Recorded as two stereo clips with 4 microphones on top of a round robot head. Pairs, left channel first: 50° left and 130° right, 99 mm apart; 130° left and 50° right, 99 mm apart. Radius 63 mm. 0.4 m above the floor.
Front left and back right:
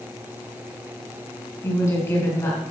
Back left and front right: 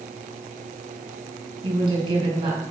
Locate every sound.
1.6 s a woman speaking: 10° right, 5.5 m